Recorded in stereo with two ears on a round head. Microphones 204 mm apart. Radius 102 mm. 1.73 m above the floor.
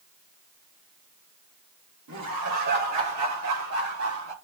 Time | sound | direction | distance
2.1 | laughter | 85° right | 2.5 m